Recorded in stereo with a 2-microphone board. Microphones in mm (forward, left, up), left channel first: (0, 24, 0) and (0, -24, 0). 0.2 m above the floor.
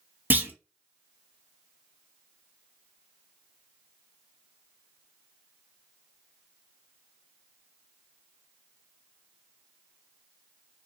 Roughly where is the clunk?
Right.